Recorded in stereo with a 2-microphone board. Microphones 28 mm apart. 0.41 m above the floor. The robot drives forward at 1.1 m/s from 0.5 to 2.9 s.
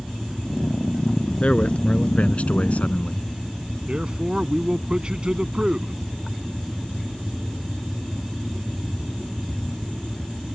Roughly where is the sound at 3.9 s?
Right.